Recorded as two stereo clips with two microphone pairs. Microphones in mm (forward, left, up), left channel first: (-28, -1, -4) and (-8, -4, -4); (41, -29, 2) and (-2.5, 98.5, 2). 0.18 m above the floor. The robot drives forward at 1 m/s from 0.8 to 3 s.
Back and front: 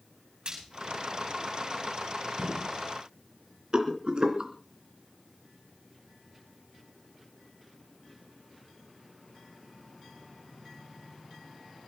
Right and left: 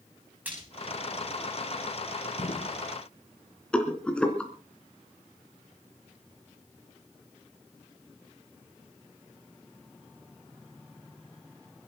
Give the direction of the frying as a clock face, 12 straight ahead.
11 o'clock.